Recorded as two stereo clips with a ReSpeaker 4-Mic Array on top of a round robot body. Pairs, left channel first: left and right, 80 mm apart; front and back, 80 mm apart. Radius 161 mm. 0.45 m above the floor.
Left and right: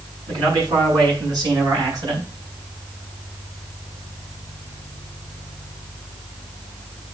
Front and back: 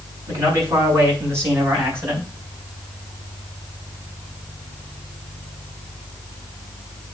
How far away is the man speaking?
About 6.5 m.